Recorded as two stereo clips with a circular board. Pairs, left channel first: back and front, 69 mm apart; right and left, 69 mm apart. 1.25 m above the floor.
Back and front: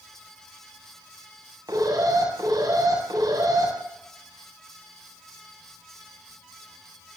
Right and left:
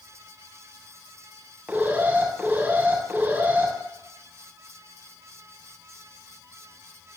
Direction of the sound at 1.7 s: 25° left.